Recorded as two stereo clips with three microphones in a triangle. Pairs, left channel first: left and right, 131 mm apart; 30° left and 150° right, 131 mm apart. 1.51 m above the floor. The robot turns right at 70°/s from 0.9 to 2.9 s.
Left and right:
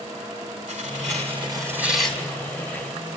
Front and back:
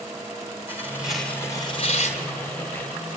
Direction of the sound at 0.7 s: 75° right.